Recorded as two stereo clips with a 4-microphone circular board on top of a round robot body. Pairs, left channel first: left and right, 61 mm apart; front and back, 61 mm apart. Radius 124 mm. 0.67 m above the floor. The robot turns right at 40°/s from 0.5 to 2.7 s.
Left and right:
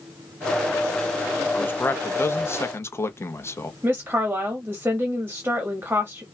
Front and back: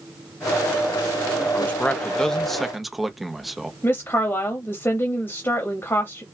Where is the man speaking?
45° left, 1.1 m; by 3.7 s 90° left, 1.1 m.